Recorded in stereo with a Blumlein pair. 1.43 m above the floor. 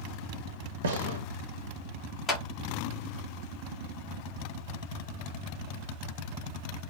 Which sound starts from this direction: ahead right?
A gunshot, at 0.8 s.